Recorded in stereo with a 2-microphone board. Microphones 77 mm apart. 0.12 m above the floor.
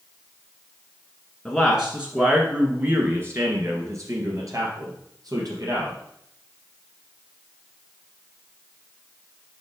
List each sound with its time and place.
1.4 s a man speaking: centre (ahead or behind), 1.2 m; by 6.0 s 55° right (ahead or behind), 3 m